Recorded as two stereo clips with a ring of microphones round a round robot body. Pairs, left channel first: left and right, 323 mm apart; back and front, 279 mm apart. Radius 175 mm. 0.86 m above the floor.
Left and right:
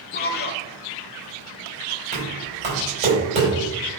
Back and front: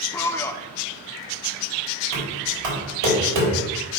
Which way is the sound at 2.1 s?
20° right.